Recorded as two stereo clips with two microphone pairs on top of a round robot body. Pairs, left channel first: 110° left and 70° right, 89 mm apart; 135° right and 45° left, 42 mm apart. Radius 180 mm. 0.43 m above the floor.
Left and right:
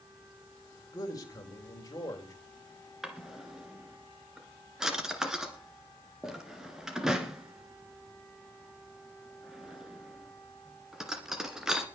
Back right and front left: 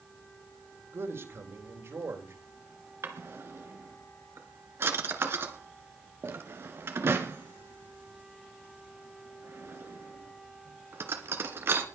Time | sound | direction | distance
0.9 | a man speaking | 65° left | 3.5 m
3.0 | a drawer | 15° left | 1.8 m